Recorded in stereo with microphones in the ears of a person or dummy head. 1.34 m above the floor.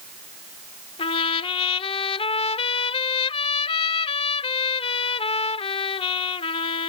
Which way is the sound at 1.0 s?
30° left (ahead or behind).